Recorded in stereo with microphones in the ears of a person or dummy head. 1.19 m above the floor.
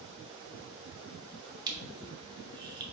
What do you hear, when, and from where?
1.7 s crushing: 20° right (ahead or behind), 0.5 m